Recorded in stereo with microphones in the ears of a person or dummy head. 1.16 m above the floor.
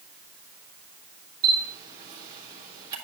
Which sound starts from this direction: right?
A camera shutter, at 1.4 s.